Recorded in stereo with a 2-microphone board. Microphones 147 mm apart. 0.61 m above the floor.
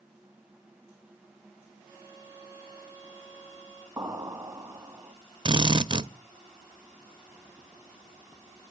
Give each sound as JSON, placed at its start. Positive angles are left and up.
{"t": 1.8, "sound": "a violin", "side_deg": 10, "distance_m": 5.5}
{"t": 4.0, "sound": "an explosion", "side_deg": -20, "distance_m": 1.2}
{"t": 5.5, "sound": "a drill", "side_deg": -35, "distance_m": 0.6}